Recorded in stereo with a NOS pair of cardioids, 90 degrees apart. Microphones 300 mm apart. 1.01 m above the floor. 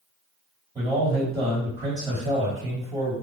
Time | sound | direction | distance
0.8 | a man speaking | 15° right | 1.8 m